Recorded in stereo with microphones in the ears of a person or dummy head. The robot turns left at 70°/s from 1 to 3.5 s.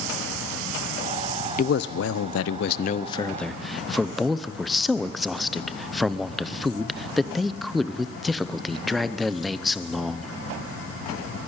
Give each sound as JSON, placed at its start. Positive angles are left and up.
{"t": 1.6, "sound": "a man speaking", "azimuth_deg": 135, "distance_m": 0.7}